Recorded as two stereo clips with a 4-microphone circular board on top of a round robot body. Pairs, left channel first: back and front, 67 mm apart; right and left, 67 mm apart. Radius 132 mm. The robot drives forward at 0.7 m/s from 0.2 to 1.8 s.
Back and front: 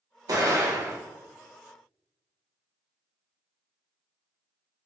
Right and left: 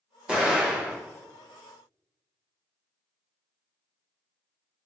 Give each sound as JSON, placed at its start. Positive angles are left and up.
{"t": 0.3, "sound": "an explosion", "azimuth_deg": 15, "distance_m": 1.3}